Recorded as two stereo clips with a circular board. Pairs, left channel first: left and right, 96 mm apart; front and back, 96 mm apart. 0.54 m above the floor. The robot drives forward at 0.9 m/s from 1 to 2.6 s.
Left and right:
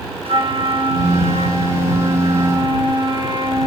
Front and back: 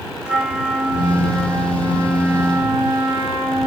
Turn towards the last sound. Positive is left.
turn(degrees=-110)